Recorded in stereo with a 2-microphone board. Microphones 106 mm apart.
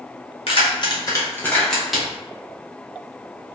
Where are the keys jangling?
60° left (ahead or behind), 0.9 m; by 2.1 s 5° right (ahead or behind), 1.1 m.